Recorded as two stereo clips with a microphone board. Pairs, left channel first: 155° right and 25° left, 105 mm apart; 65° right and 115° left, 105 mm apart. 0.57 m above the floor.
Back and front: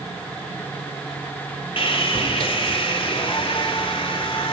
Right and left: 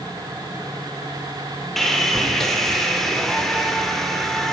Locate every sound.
1.8 s sawing: 155° right, 1.7 m